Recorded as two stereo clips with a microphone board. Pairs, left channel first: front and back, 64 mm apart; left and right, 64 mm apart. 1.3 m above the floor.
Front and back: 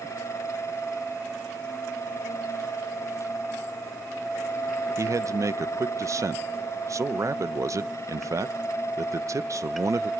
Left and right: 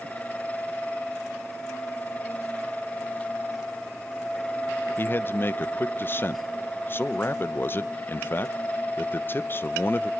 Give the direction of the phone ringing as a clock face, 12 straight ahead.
I don't hear a phone ringing.